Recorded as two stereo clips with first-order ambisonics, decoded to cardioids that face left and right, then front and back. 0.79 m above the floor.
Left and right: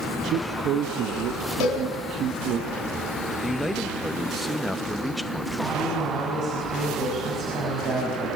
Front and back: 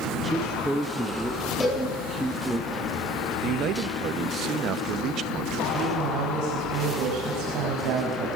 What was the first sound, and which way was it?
A man speaking, 90° right.